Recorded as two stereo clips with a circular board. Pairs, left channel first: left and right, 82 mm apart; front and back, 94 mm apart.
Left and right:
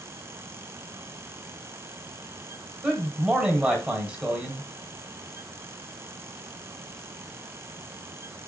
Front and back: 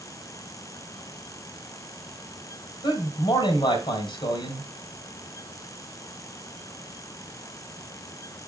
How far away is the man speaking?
About 2 m.